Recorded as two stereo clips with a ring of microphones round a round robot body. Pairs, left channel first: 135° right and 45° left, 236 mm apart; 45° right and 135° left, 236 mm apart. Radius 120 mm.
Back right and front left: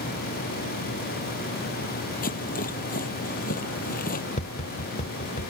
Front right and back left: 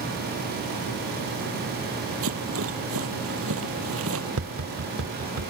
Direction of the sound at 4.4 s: 165° left.